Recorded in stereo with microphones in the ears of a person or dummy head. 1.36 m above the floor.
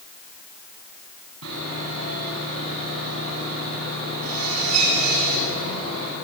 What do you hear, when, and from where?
1.4 s sawing: 90° right, 10 m